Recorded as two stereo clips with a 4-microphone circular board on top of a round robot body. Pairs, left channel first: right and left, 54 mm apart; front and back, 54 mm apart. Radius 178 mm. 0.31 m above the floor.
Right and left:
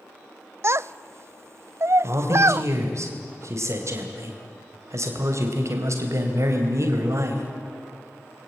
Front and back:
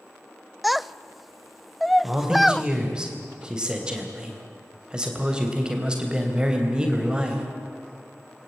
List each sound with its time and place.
0.6 s a child speaking: 90° left, 0.5 m
2.0 s a man speaking: 105° left, 3 m